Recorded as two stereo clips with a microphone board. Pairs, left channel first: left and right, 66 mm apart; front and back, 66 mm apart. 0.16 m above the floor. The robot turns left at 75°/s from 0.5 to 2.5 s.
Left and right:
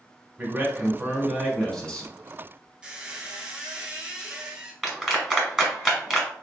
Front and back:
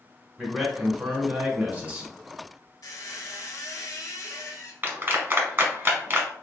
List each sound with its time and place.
0.4 s a man speaking: 105° right, 1.1 m; by 2.1 s 130° left, 1.1 m
2.8 s a squeak: 15° right, 0.8 m
4.8 s a clap: 165° right, 1.3 m